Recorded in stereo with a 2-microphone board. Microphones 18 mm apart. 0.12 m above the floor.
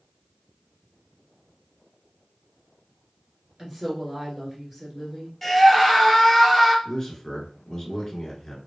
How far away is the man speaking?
About 1.3 m.